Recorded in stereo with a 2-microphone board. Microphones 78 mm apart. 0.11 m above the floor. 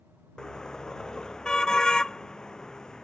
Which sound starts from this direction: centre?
A car horn, at 0.4 s.